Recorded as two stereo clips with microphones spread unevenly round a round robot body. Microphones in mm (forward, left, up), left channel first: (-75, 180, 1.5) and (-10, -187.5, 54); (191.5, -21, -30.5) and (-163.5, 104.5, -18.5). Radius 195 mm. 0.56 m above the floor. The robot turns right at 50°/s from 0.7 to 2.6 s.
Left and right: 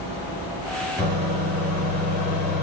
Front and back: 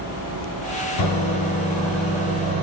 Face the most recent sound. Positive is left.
turn(degrees=100)